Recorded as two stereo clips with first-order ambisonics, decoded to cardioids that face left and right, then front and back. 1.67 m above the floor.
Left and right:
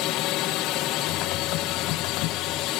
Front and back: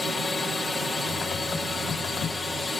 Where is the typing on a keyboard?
65° left.